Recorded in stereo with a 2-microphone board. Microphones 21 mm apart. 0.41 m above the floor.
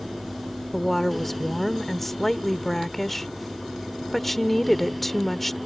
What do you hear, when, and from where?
0.7 s a woman speaking: 15° left (ahead or behind)